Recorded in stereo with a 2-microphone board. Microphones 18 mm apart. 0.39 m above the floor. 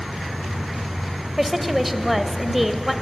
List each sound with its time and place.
0.0 s an insect: 60° right (ahead or behind), 1.2 m
1.4 s a woman speaking: 10° right (ahead or behind), 1.3 m